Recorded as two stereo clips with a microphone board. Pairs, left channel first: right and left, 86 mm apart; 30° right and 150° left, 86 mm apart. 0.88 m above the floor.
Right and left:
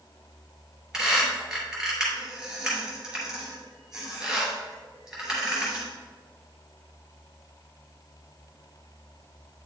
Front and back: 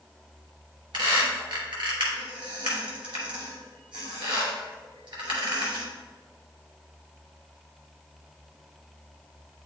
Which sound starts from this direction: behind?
A squeak, at 0.9 s.